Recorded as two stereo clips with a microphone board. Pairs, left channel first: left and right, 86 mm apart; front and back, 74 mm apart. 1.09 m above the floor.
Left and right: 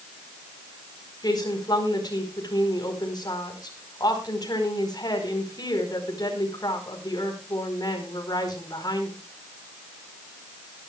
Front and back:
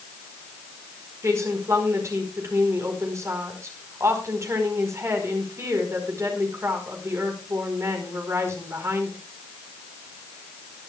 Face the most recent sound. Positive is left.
turn(degrees=130)